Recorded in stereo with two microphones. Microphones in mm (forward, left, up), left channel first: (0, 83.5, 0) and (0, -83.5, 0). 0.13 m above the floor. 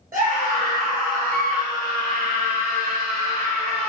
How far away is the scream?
About 2.5 m.